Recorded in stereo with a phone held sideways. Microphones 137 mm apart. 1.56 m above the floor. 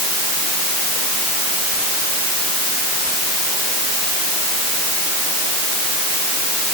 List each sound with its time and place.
Only background noise.